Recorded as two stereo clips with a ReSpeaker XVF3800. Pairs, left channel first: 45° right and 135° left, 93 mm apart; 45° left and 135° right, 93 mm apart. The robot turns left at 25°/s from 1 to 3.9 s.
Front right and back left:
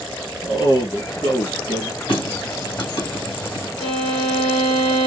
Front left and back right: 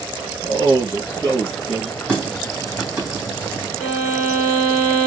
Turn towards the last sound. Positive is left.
turn(degrees=-70)